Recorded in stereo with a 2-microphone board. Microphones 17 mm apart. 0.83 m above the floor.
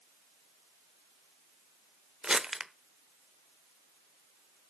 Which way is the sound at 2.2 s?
50° right (ahead or behind).